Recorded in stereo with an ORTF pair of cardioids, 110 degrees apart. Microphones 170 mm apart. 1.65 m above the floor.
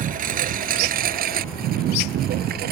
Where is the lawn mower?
55° right; by 2.7 s 70° right.